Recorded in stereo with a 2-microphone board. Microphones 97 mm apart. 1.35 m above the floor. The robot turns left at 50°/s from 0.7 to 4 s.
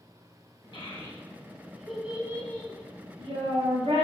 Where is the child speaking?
50° left (ahead or behind), 0.8 m; by 4.1 s 65° right (ahead or behind), 0.8 m.